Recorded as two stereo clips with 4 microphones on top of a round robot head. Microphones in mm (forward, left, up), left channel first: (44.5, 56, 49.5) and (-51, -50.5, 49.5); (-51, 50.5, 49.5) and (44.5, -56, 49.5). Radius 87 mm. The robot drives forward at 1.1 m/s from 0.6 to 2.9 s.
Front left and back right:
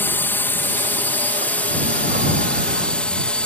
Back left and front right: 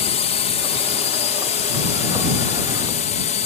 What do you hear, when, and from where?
0.0 s a drone: 120° left; by 3.5 s 130° left